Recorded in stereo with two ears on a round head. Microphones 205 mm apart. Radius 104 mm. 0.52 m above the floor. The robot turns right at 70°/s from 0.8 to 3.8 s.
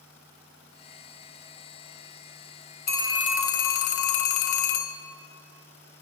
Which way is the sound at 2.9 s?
25° left.